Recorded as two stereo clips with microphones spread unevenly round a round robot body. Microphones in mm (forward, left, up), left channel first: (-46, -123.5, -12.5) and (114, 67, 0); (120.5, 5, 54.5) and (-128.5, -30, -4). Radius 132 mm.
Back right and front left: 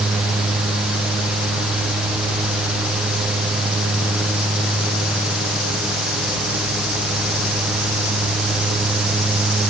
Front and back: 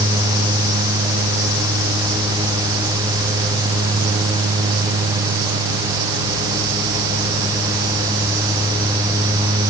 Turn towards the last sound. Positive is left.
No sound to turn to.